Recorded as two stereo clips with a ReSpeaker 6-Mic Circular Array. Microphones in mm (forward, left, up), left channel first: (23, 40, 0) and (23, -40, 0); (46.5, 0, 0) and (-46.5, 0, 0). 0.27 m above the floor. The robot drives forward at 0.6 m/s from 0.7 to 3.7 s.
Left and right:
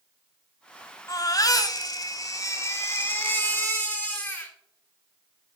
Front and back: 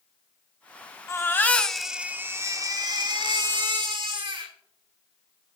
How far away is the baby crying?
About 0.8 m.